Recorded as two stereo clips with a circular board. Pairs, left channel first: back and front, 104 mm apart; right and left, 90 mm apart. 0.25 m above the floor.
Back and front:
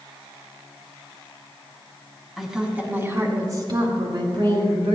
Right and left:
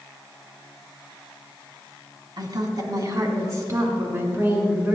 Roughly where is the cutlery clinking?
No cutlery clinking in this recording.